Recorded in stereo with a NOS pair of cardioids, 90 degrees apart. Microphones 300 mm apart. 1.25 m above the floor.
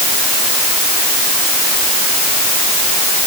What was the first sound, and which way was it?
Only background noise.